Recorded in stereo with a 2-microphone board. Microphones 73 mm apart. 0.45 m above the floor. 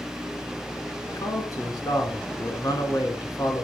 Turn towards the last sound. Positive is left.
turn(degrees=55)  # may be behind; listen again after turning